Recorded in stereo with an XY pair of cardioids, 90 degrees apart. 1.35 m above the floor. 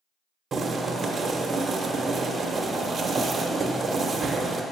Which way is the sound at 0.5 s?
50° right.